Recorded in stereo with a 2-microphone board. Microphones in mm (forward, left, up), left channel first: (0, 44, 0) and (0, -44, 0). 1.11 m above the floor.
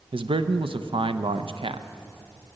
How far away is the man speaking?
About 0.6 m.